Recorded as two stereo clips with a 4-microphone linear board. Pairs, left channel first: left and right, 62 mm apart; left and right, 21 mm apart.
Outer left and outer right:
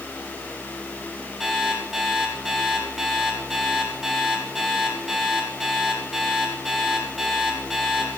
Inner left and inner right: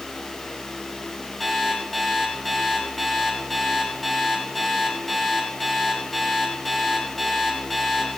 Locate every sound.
1.4 s an alarm clock: 5° right (ahead or behind), 3.5 m